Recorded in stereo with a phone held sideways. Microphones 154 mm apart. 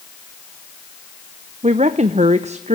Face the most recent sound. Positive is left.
turn(degrees=-50)  # may be behind; listen again after turning